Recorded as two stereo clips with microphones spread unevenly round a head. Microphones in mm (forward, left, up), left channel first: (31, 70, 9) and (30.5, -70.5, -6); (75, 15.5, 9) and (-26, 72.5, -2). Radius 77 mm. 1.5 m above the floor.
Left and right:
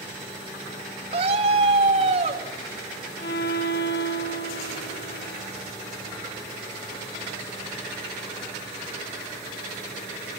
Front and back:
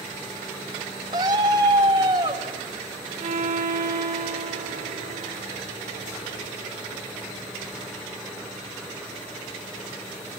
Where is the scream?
145° right, 3 m.